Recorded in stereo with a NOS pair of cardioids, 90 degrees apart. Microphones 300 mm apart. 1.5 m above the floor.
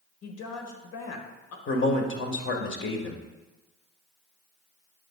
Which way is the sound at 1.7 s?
45° left.